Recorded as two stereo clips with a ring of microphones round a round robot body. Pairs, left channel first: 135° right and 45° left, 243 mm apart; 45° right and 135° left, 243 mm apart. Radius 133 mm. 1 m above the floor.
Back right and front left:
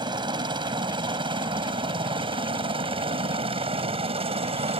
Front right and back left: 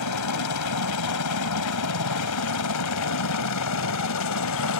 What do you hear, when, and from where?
0.0 s a helicopter: 30° right; by 4.8 s 25° right